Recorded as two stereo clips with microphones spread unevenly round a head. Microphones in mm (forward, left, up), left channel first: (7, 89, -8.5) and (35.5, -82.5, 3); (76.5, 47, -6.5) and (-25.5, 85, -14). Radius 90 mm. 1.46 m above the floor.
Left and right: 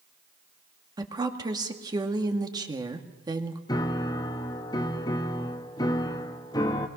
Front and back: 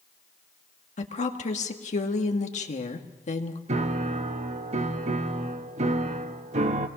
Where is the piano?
170° left, 1.1 m.